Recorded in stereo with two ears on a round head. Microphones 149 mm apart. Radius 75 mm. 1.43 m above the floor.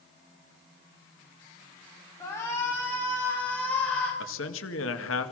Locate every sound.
2.2 s a shout: 20° left (ahead or behind), 3.5 m; by 4.1 s 10° left (ahead or behind), 5 m
4.2 s a man speaking: 80° left, 2 m